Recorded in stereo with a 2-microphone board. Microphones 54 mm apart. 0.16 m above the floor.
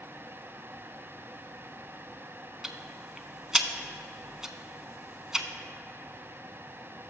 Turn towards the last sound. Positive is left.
turn(degrees=-10)  # may be behind; listen again after turning